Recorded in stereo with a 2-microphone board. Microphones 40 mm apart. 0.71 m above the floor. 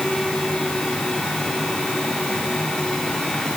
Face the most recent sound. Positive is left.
No sound to turn to.